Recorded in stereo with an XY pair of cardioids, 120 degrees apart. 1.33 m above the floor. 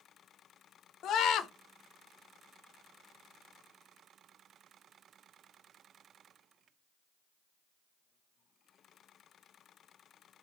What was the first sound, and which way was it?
A scream, 65° left.